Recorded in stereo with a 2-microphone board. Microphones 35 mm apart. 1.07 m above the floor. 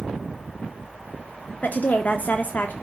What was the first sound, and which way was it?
A woman speaking, 55° left (ahead or behind).